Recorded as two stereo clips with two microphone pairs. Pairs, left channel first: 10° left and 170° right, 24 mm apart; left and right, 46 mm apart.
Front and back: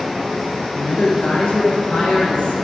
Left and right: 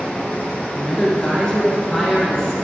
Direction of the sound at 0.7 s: 20° left.